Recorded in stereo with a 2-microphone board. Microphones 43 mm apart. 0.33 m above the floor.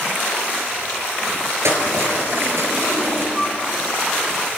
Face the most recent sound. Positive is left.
turn(degrees=0)  # may be behind; listen again after turning